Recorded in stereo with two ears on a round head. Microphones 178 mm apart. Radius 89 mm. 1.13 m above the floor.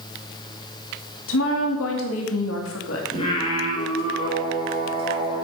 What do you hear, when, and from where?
1.3 s a woman speaking: 80° left, 2.5 m
3.1 s singing: 30° left (ahead or behind), 4.5 m